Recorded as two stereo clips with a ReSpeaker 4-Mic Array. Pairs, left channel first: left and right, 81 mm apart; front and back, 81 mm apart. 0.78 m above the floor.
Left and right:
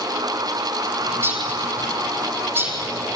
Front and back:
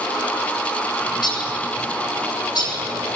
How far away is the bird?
About 9 m.